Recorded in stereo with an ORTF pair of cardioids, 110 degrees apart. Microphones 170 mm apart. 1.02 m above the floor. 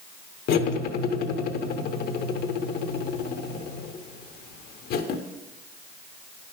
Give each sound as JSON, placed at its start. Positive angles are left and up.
{"t": 0.5, "sound": "cutlery clinking", "azimuth_deg": 65, "distance_m": 1.0}